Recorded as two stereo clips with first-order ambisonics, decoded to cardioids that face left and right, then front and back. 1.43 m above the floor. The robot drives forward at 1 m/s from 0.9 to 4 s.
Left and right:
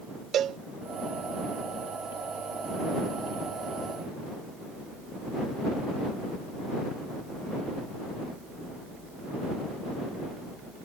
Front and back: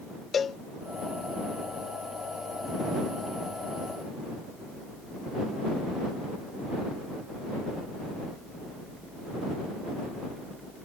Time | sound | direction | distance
0.3 | a cowbell | 55° right | ?